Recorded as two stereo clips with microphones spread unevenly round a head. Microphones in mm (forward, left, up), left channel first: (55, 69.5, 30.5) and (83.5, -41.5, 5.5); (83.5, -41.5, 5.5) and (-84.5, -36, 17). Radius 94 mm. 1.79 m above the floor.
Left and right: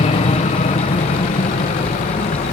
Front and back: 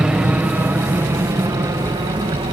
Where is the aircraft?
95° left; by 2.5 s 110° left.